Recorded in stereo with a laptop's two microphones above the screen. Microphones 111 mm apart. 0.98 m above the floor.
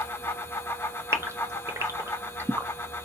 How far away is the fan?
About 0.7 m.